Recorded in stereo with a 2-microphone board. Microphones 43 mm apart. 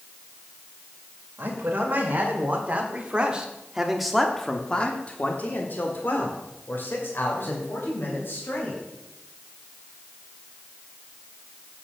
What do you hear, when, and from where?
1.4 s a man speaking: 45° right (ahead or behind), 2 m; by 8.8 s 60° left (ahead or behind), 3 m